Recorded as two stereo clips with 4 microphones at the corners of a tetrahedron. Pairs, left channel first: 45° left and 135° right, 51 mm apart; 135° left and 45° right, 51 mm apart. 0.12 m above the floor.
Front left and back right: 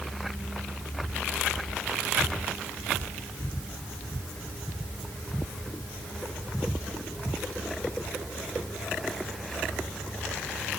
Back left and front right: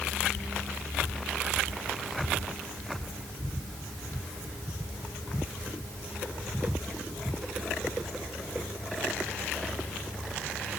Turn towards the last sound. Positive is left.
No sound to turn to.